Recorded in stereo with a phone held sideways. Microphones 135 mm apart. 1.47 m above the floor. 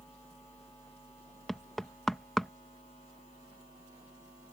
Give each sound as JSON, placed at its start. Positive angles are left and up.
{"t": 1.5, "sound": "knocking", "side_deg": 0}